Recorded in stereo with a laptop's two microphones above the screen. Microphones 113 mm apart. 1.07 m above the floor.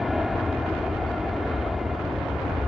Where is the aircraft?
Centre (ahead or behind).